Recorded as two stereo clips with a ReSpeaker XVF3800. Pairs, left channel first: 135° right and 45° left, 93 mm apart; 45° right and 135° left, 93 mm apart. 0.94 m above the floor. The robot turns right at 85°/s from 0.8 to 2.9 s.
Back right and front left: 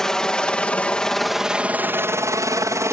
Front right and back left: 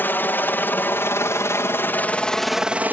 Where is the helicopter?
60° right; by 2.9 s 75° left.